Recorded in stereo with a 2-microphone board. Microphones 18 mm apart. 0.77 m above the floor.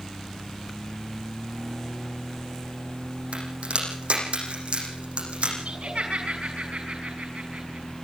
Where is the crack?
85° right, 9.5 m.